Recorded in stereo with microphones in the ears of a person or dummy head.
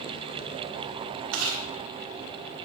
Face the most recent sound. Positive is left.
turn(degrees=-75)  # may be behind; listen again after turning